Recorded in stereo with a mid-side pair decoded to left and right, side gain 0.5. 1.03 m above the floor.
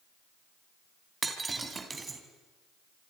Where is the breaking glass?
25° right, 3 m.